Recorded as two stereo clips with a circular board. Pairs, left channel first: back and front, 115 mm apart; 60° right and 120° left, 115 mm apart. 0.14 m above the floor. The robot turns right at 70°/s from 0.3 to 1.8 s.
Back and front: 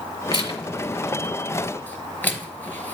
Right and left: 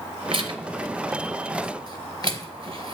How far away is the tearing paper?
About 0.9 m.